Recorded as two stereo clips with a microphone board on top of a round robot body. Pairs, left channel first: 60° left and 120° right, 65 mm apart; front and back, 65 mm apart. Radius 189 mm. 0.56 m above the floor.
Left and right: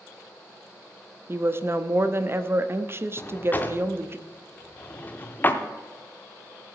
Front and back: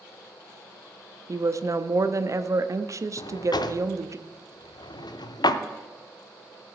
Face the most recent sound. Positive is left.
turn(degrees=-5)